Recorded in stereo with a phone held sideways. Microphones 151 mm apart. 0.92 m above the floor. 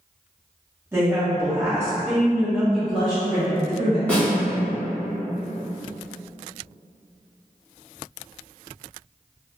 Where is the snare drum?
10° left (ahead or behind), 1.9 m.